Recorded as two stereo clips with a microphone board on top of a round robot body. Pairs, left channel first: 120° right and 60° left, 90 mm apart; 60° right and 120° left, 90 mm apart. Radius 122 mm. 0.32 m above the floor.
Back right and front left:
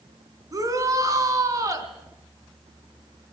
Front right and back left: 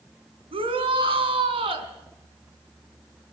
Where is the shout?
110° left, 3.5 m.